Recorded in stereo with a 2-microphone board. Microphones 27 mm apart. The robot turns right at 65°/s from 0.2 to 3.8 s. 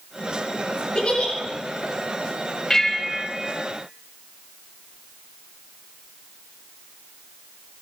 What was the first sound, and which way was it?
A giggle, 45° left (ahead or behind).